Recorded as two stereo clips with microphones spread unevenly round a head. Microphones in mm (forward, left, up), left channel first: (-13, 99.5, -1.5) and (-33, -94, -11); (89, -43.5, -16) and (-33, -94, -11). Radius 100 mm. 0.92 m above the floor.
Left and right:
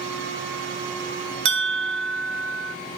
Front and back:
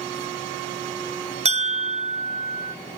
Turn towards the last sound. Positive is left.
turn(degrees=-120)